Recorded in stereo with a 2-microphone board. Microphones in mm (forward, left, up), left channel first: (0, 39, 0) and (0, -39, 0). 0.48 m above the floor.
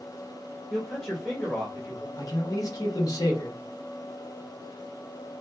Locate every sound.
0.7 s a man speaking: 20° left (ahead or behind), 1.2 m
2.2 s a man speaking: 50° left (ahead or behind), 1.2 m